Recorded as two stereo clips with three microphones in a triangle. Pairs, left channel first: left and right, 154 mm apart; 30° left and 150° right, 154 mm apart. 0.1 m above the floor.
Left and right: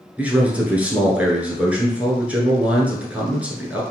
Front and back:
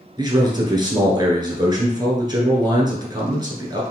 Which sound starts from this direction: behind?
A man speaking, at 0.2 s.